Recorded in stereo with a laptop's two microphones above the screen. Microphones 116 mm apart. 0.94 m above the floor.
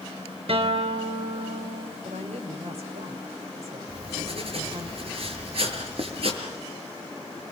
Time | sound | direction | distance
0.5 | a guitar | 60° right (ahead or behind) | 3.5 m
2.0 | a woman speaking | 70° right (ahead or behind) | 3.5 m
3.9 | writing | 55° right (ahead or behind) | 5.5 m